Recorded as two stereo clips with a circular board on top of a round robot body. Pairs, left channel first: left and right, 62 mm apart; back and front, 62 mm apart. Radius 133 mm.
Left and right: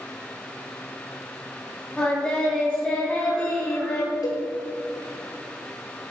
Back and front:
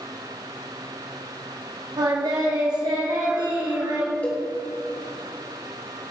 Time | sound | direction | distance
2.0 | singing | 15° left | 3 m
4.2 | a cowbell | 110° left | 3.5 m